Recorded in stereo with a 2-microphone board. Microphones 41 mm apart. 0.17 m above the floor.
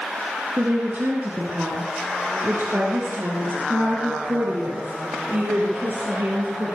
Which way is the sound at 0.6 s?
55° right (ahead or behind).